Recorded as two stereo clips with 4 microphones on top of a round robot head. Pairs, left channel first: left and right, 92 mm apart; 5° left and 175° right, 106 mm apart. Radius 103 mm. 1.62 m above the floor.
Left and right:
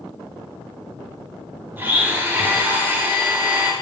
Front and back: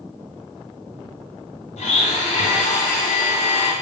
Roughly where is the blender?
Ahead.